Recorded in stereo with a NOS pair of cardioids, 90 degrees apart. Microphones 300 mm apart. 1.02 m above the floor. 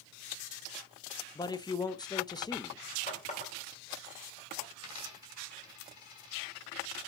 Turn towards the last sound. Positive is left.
turn(degrees=65)